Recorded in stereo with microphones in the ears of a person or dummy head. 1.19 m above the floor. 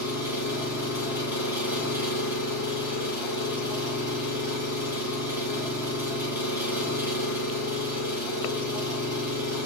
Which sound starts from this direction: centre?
An engine running, at 0.0 s.